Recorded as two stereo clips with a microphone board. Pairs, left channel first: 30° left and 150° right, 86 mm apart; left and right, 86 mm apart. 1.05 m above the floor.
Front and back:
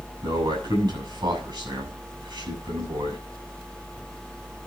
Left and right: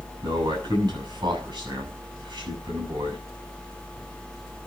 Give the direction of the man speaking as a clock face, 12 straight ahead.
4 o'clock.